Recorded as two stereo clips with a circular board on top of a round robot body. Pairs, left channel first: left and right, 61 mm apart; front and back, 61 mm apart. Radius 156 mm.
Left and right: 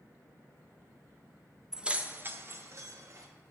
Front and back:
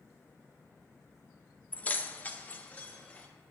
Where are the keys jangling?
20° right, 0.6 m; by 3.3 s 70° right, 1.1 m.